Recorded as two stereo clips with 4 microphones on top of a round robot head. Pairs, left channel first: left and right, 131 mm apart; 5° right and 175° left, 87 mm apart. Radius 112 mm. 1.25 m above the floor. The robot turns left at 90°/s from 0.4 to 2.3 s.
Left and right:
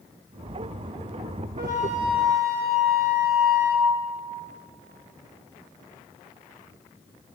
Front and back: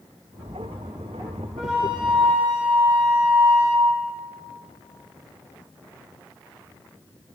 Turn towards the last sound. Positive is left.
turn(degrees=-155)